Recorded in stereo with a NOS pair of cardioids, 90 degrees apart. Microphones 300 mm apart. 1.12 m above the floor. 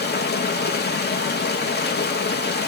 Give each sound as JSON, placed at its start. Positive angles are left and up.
{"t": 0.0, "sound": "running water", "azimuth_deg": 35, "distance_m": 1.0}